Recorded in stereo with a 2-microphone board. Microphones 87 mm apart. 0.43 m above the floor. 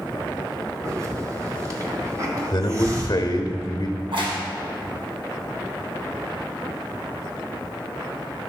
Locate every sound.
0.8 s a hiss: 40° right (ahead or behind), 1.6 m
2.5 s a man speaking: 50° left (ahead or behind), 1.1 m
4.0 s a crack: 75° right (ahead or behind), 2 m